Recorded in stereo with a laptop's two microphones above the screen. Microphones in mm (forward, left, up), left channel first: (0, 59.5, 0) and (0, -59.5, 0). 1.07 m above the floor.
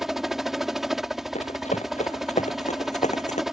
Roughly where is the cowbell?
I don't hear a cowbell.